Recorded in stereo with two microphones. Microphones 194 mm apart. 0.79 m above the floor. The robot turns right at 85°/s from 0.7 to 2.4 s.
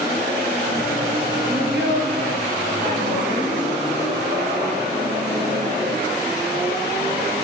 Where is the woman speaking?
130° right, 5.5 m; by 3.5 s 50° right, 5.5 m.